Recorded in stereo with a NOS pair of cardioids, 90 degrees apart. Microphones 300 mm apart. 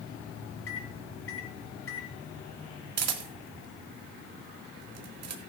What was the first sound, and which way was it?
A microwave, 50° left.